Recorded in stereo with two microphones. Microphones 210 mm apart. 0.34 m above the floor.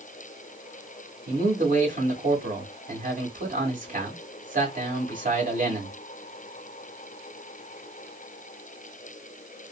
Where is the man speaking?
40° right (ahead or behind), 1.4 m.